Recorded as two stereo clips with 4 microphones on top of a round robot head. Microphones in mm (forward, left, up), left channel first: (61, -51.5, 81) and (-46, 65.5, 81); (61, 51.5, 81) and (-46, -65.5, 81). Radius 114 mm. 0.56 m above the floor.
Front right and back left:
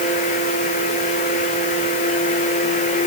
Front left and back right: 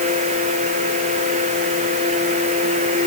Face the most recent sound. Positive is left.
No sound to turn to.